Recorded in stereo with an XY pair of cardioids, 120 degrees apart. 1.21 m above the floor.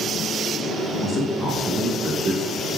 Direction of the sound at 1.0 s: 40° left.